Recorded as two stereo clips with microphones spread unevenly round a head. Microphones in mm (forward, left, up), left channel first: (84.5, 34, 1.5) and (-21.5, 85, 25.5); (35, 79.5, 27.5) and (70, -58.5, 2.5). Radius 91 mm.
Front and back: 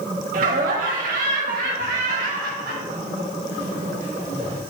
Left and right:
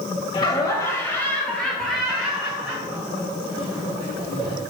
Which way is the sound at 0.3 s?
170° left.